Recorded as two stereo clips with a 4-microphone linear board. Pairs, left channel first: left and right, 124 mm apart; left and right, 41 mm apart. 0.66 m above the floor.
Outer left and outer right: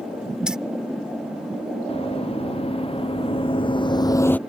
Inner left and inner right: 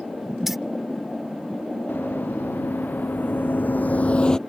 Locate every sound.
0.5 s keys jangling: 5° right (ahead or behind)
1.9 s running footsteps: 50° left (ahead or behind); by 4.4 s 10° left (ahead or behind)